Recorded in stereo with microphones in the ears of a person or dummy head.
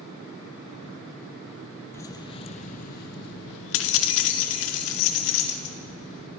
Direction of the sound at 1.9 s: 15° left (ahead or behind).